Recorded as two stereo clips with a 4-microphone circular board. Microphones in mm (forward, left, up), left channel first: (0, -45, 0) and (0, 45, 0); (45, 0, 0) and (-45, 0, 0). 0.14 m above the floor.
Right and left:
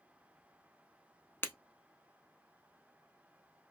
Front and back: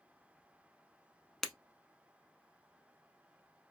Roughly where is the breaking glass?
Right.